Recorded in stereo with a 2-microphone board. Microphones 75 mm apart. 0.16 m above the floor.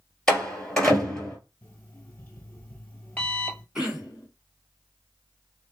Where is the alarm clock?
20° left (ahead or behind), 1.6 m.